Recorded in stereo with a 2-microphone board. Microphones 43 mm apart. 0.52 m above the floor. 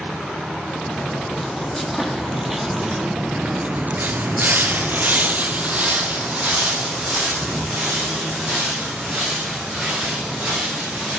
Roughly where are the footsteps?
Centre.